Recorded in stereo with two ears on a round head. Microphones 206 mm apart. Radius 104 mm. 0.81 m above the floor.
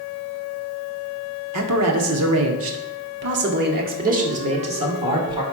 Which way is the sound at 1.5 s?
75° right (ahead or behind).